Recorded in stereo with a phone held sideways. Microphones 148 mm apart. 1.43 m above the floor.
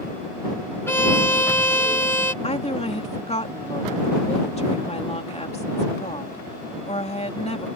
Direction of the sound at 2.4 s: 45° left (ahead or behind).